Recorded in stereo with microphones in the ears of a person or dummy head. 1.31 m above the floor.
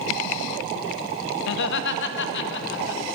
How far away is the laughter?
About 0.8 m.